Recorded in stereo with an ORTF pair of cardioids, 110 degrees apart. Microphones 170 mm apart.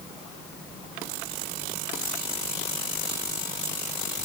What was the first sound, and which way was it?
Only background noise.